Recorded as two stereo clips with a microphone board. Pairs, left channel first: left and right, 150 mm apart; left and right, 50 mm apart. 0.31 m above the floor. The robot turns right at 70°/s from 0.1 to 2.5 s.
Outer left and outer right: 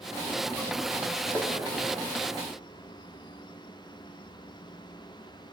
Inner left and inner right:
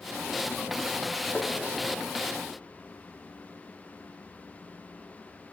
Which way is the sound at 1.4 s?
5° left (ahead or behind).